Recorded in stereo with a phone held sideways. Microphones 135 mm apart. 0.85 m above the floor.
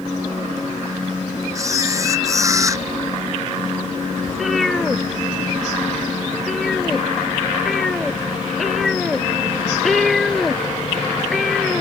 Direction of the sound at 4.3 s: Centre (ahead or behind).